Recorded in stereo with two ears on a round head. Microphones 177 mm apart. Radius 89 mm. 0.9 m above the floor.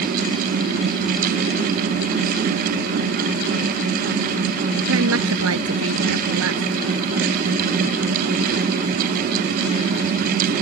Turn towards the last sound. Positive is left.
turn(degrees=-85)